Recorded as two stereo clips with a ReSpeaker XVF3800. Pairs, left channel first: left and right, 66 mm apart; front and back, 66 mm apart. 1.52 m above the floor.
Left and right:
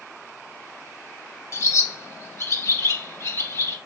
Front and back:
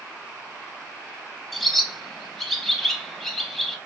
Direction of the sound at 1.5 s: 85° left.